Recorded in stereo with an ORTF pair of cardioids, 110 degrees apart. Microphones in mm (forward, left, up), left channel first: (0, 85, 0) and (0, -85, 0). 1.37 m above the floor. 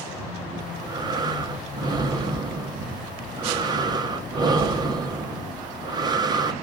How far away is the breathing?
About 0.7 m.